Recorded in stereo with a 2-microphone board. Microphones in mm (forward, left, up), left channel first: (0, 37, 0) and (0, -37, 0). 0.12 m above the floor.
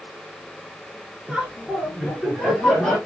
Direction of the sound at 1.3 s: 5° right (ahead or behind).